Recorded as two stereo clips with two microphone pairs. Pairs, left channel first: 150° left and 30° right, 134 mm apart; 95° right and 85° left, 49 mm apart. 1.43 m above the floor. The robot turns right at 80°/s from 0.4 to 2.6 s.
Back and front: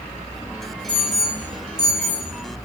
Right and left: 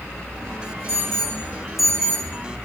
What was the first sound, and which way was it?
An alarm, 95° left.